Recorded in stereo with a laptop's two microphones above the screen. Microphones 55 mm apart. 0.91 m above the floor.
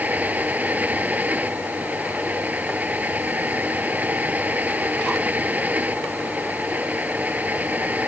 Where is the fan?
30° right (ahead or behind).